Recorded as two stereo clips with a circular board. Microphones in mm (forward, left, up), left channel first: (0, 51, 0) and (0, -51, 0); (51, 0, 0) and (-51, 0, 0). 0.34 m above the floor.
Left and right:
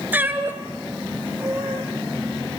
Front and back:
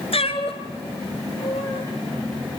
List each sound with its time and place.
0.1 s a cat meowing: 20° right, 1.7 m